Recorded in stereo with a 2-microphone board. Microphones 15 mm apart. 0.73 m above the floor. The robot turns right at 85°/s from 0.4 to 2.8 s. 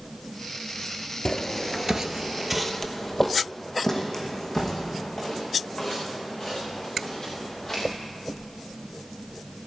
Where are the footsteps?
35° left (ahead or behind), 0.9 m; by 7.8 s 30° left (ahead or behind), 6 m.